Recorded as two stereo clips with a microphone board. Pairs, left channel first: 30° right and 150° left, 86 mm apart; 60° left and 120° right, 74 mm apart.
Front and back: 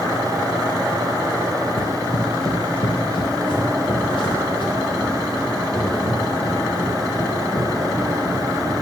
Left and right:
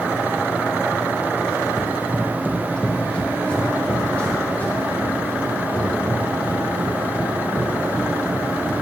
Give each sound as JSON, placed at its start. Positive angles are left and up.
{"t": 1.8, "sound": "running footsteps", "azimuth_deg": -40, "distance_m": 1.0}